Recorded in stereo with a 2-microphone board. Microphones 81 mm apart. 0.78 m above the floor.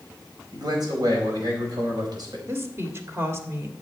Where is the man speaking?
60° right (ahead or behind), 4.5 m.